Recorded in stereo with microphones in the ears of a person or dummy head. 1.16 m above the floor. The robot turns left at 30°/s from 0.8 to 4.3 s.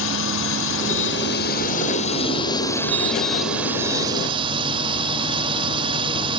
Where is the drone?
80° left; by 6.4 s 25° right.